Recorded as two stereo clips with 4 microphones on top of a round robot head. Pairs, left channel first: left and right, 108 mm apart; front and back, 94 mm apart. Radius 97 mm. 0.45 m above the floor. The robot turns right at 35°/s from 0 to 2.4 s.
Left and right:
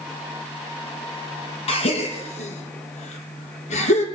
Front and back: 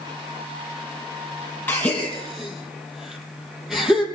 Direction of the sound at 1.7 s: 70° left.